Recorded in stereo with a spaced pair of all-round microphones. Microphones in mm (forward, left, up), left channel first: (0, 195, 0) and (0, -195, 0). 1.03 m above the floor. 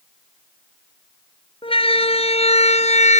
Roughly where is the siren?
Centre.